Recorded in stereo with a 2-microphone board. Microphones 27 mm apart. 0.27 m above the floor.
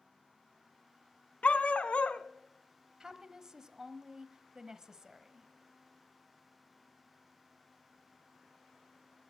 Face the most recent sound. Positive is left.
turn(degrees=-25)  # may be behind; listen again after turning